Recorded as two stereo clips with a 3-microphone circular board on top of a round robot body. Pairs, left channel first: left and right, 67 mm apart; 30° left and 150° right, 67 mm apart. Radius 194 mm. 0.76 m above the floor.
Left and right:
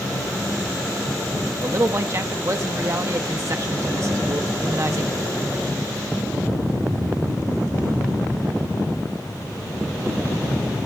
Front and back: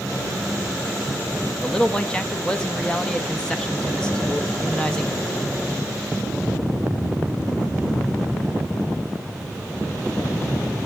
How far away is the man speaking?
About 0.9 m.